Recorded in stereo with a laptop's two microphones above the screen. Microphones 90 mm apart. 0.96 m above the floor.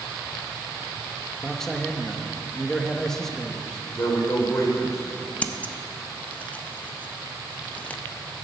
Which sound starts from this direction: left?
A man speaking, at 4.0 s.